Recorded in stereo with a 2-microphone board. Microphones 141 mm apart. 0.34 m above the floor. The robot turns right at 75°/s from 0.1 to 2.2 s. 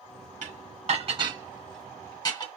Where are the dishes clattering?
70° right (ahead or behind), 2 m; by 2.5 s 35° left (ahead or behind), 2 m.